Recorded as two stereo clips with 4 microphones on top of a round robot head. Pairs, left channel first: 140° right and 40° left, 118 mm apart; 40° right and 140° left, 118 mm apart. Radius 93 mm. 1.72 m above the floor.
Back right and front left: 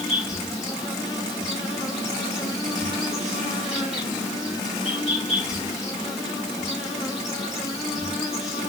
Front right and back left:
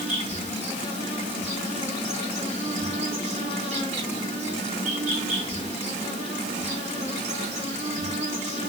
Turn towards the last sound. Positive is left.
turn(degrees=125)